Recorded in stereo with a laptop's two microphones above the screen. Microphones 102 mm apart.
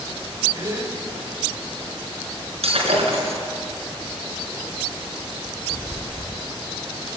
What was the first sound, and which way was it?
A gasp, 30° right (ahead or behind).